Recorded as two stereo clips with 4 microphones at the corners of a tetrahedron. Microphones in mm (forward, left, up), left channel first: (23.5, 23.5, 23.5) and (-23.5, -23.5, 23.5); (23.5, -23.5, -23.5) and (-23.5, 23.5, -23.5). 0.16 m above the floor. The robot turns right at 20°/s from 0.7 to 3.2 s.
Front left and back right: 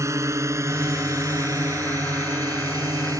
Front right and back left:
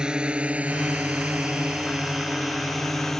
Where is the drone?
150° right; by 3.2 s 130° right.